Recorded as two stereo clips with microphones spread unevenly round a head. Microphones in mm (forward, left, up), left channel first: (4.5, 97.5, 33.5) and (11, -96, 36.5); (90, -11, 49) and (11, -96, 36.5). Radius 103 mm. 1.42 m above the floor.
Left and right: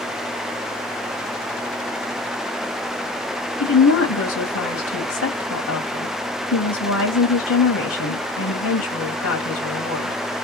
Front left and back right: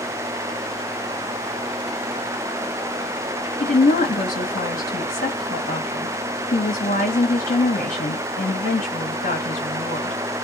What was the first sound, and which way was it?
A woman speaking, 85° left.